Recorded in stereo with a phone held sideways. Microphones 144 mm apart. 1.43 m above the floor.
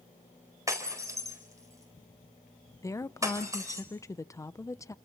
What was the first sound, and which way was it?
Breaking glass, 20° right (ahead or behind).